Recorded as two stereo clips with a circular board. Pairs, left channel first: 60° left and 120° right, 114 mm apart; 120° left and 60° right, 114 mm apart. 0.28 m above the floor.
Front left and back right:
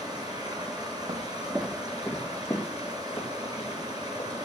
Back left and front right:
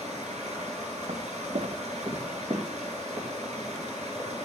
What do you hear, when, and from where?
0.0 s running water: 65° right, 3 m
1.1 s footsteps: 85° right, 0.7 m; by 4.3 s straight ahead, 4 m